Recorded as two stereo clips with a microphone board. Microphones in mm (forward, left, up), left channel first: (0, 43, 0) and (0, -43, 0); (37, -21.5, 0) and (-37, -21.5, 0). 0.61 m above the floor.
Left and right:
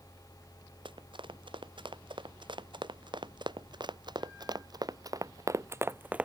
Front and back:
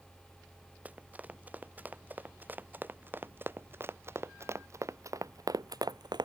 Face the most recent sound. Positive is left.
turn(degrees=-165)